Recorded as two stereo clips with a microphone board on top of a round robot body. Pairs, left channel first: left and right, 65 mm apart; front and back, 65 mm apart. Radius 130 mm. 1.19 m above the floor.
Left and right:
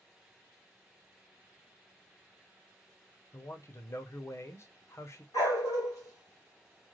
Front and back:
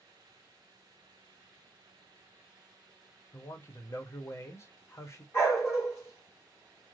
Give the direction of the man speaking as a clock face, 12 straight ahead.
10 o'clock.